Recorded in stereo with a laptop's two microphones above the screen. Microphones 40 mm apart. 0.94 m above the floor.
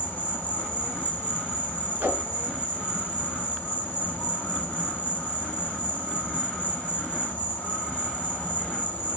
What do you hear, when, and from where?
0.0 s an insect: 55° left (ahead or behind), 1.8 m
2.0 s a whoosh: 75° right (ahead or behind), 2.5 m